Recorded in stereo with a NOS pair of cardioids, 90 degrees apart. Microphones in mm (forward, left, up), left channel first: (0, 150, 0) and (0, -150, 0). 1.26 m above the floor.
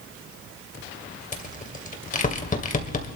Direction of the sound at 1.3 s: 25° left.